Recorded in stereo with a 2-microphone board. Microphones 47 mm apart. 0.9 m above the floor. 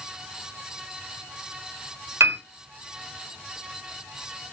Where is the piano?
70° right (ahead or behind), 1.5 m.